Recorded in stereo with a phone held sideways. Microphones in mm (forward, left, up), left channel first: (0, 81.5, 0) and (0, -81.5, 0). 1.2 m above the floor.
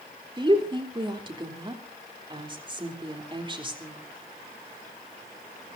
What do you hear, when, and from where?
0.4 s a woman speaking: 30° right (ahead or behind), 3.5 m